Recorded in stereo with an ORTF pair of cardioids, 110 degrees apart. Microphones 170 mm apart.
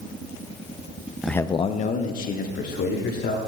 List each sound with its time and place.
1.2 s a man speaking: 5° right, 0.6 m; by 3.4 s 65° left, 3 m